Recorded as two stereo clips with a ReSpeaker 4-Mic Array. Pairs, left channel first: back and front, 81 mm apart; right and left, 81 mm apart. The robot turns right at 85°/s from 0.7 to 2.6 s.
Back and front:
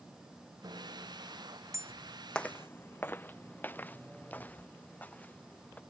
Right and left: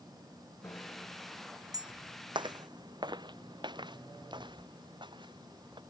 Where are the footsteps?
100° left; by 5.8 s 110° left.